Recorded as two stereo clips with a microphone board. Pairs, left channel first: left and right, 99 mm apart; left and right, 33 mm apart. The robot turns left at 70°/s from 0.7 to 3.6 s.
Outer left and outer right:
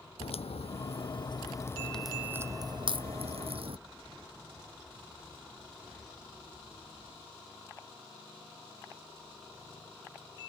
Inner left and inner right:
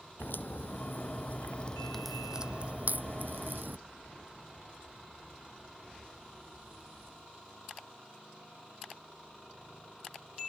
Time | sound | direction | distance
0.2 | a crack | 80° left | ?